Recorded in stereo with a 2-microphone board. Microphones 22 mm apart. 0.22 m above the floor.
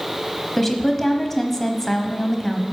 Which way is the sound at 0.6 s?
10° left (ahead or behind).